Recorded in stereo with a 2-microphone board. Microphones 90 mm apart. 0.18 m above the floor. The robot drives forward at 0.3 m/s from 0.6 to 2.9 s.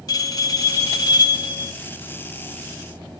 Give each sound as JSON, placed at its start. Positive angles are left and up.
{"t": 0.1, "sound": "a bell", "side_deg": 45, "distance_m": 0.6}